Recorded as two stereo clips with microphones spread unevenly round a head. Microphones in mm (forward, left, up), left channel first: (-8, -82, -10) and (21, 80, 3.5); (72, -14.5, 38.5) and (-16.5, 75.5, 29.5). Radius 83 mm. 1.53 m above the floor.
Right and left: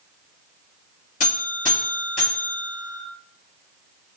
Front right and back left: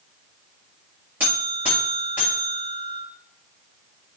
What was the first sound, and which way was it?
A buzzer, 145° right.